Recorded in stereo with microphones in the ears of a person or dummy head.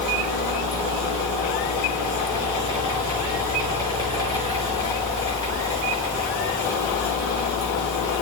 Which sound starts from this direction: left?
A fan, at 0.0 s.